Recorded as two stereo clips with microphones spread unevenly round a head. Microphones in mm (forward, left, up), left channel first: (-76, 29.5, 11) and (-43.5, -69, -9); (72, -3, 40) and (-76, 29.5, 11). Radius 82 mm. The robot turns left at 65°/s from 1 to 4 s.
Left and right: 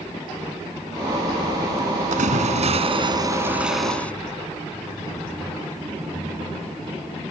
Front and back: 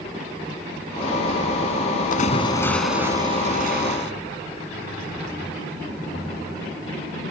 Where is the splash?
55° right; by 4.1 s 175° right.